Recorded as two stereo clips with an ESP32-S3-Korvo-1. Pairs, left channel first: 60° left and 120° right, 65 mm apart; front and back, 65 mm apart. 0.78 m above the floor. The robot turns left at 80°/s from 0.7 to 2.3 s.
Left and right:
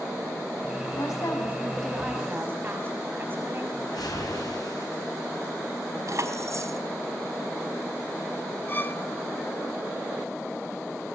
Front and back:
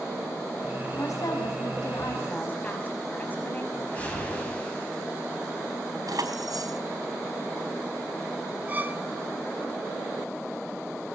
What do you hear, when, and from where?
0.9 s a woman speaking: 45° left, 6 m; by 3.6 s 65° right, 6 m
3.7 s a whoosh: 70° left, 6.5 m
6.1 s keys jangling: 160° right, 4 m
8.7 s a violin: 115° left, 2.5 m